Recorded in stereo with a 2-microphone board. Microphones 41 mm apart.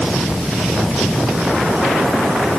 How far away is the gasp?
I don't hear a gasp.